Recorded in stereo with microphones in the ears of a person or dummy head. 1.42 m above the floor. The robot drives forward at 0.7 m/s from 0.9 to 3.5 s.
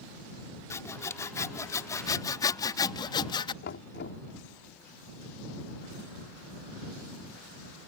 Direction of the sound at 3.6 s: 60° left (ahead or behind).